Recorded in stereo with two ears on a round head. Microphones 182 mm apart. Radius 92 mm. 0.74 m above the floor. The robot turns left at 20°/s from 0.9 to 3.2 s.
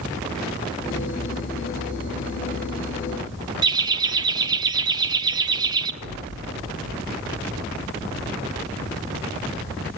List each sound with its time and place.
3.6 s laughter: 20° right (ahead or behind), 1.4 m
6.0 s an explosion: 55° right (ahead or behind), 2.5 m